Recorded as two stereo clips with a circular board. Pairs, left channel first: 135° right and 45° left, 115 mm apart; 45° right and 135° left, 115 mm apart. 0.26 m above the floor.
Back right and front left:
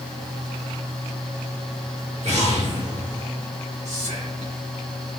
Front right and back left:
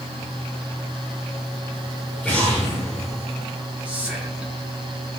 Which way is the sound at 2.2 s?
35° left.